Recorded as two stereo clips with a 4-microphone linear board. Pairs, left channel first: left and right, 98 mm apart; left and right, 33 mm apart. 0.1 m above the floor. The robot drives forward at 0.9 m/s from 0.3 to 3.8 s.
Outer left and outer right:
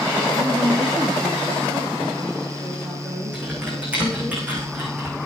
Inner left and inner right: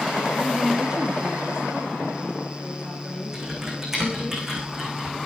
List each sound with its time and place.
0.4 s a woman speaking: 35° right (ahead or behind), 1.8 m; by 4.3 s 15° right (ahead or behind), 4.5 m
3.3 s typing on a keyboard: 15° right (ahead or behind), 5.5 m